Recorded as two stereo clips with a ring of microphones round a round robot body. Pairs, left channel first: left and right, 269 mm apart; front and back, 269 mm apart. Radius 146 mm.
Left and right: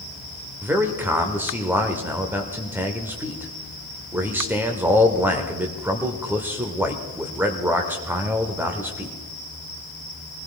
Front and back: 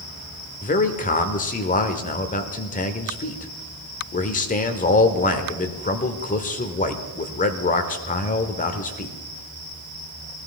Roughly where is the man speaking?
Ahead.